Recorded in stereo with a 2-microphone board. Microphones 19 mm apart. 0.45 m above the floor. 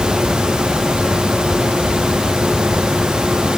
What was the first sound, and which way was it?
Only background noise.